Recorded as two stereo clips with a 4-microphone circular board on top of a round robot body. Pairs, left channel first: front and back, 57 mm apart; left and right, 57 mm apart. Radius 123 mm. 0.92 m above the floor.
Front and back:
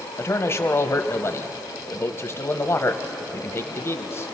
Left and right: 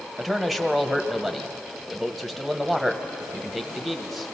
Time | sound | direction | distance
0.2 | a man speaking | straight ahead | 1.1 m